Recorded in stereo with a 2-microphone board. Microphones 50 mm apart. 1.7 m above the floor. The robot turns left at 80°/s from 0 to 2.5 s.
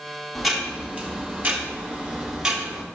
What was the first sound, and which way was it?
Ticking, 5° left.